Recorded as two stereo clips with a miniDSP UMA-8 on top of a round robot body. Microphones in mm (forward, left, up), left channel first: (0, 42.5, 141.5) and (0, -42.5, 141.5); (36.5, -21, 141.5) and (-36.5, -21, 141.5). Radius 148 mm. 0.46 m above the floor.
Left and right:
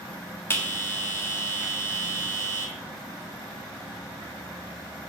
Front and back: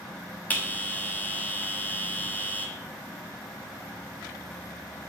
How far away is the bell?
About 1.4 m.